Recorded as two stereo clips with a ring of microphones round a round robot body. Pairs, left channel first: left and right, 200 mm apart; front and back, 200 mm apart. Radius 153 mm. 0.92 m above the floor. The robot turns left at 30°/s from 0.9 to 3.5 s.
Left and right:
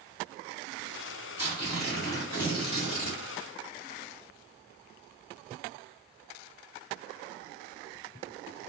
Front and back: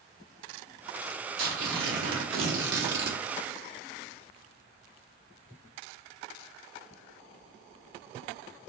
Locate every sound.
1.4 s tearing paper: 170° right, 0.9 m; by 3.2 s 135° left, 0.9 m